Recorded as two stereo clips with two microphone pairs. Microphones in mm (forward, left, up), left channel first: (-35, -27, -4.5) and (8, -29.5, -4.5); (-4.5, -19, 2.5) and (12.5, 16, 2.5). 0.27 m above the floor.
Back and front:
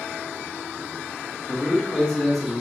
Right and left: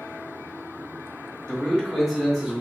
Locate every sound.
1.5 s a man speaking: 170° right, 1.1 m; by 2.6 s 95° left, 1.1 m